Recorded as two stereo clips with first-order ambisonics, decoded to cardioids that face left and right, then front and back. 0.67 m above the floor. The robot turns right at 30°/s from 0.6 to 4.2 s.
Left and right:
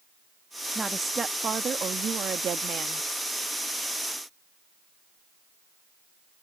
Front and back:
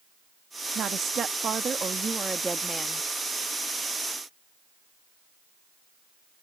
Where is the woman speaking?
160° right; by 3.1 s 90° right.